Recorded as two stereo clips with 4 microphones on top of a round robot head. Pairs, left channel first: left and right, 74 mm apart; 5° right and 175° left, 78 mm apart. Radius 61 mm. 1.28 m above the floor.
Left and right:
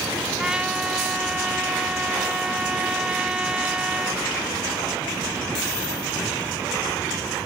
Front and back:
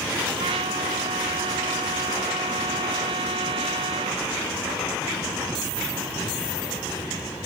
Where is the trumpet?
170° right.